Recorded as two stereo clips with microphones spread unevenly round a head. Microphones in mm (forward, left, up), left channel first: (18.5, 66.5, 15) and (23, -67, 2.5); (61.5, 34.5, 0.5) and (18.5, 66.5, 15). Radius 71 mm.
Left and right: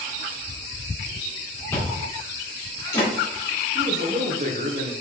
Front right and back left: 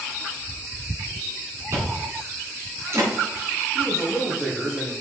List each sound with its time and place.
1.7 s chewing: 155° left, 3 m
3.8 s a man speaking: 135° right, 1.2 m